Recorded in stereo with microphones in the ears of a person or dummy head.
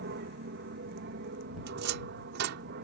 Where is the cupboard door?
65° right (ahead or behind).